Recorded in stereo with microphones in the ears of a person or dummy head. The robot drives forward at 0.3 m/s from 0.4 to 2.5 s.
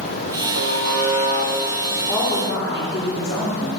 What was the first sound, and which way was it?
A buzzer, 70° right (ahead or behind).